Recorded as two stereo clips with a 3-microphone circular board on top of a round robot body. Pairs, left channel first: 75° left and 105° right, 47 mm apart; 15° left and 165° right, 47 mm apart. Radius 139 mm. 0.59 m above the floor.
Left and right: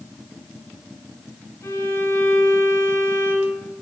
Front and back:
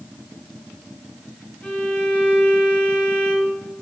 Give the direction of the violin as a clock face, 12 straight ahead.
10 o'clock.